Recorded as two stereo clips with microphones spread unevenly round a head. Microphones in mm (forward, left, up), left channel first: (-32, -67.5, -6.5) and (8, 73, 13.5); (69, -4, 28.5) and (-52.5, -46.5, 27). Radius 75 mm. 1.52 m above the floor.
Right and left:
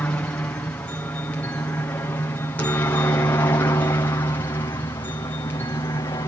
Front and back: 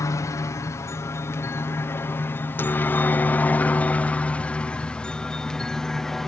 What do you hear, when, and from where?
0.0 s a helicopter: 35° right; by 6.3 s 65° right